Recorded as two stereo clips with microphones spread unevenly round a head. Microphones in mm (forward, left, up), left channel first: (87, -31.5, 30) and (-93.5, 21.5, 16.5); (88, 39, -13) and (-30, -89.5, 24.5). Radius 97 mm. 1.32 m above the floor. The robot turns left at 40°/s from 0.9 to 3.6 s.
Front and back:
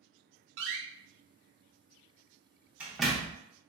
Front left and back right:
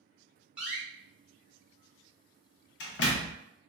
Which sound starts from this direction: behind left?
A door slam, at 0.6 s.